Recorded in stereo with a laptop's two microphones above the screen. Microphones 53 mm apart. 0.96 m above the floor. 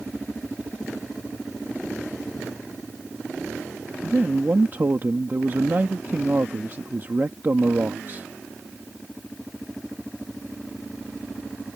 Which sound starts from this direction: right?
A man speaking, at 4.0 s.